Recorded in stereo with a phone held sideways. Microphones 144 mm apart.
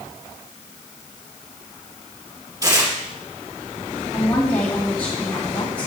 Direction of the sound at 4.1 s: 10° left (ahead or behind).